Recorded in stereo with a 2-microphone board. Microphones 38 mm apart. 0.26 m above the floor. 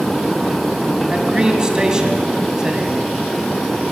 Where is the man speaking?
20° right (ahead or behind), 2.0 m.